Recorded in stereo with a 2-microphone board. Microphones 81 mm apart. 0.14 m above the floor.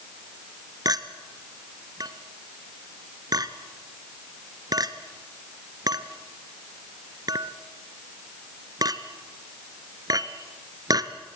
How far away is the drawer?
No drawer in this recording.